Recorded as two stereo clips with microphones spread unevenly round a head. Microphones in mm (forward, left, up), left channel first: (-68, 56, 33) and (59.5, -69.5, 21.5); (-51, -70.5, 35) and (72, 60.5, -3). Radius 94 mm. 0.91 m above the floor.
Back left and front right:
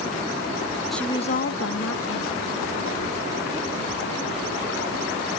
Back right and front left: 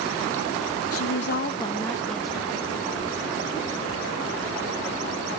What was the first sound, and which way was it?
A woman speaking, 135° right.